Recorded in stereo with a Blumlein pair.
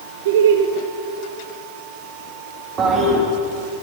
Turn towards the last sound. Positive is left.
turn(degrees=-25)